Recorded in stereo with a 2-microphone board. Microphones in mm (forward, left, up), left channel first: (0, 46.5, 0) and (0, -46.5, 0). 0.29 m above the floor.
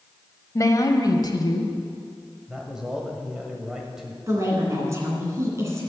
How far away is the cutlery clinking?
I don't hear cutlery clinking.